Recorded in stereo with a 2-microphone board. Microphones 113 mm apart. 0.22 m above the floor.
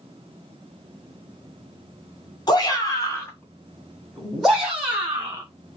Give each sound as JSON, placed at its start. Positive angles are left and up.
{"t": 2.5, "sound": "a shout", "side_deg": 40, "distance_m": 1.8}